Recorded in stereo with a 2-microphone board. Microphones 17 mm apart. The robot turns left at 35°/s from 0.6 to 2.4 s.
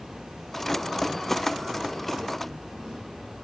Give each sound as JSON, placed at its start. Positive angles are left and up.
{"t": 0.0, "sound": "an insect", "azimuth_deg": -75, "distance_m": 1.9}